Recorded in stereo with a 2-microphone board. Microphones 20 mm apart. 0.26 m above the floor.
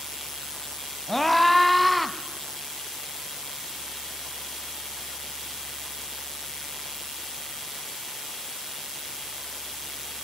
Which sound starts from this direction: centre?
A scream, at 1.1 s.